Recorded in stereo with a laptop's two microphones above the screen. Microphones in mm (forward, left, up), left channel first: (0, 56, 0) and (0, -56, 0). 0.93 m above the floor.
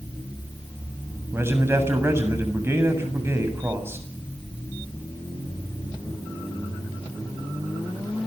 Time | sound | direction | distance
1.3 | a man speaking | 20° right (ahead or behind) | 7 m